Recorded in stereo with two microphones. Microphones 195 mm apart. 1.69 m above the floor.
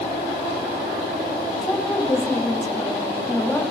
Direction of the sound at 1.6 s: 10° left (ahead or behind).